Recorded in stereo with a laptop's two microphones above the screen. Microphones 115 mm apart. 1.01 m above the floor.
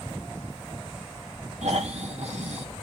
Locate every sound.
1.6 s snoring: 70° right (ahead or behind), 1.4 m